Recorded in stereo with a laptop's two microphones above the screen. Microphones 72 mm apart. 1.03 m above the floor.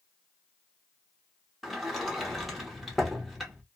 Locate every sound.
1.6 s a sliding door: centre (ahead or behind), 0.9 m